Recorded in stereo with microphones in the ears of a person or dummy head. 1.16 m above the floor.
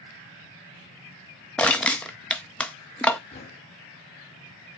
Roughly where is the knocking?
Left.